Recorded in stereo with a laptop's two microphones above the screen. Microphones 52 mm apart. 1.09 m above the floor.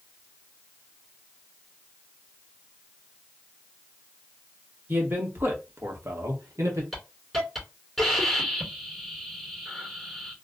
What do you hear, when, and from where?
4.9 s a man speaking: 40° right (ahead or behind), 1.5 m; by 6.8 s 70° right (ahead or behind), 0.9 m
6.9 s a hiss: centre (ahead or behind), 2 m